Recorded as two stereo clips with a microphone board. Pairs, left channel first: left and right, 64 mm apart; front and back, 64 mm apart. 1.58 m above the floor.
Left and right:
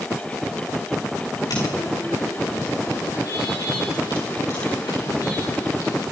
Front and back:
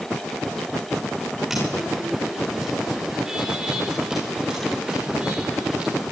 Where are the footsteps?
95° left, 8.5 m; by 6.0 s 110° left, 10 m.